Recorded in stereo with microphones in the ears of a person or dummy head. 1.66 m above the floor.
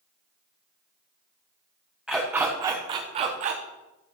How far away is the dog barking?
About 1.1 m.